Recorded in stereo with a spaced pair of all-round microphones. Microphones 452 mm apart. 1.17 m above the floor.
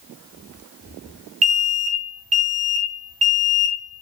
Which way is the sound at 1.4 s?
55° right (ahead or behind).